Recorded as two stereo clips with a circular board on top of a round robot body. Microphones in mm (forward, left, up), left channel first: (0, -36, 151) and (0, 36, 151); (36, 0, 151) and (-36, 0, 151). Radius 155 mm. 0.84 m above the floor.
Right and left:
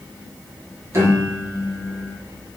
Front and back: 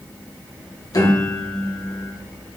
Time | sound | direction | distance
0.9 | a piano | 40° left | 2.5 m